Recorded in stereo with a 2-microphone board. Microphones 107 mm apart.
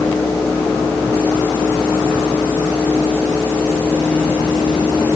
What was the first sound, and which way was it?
Only background noise.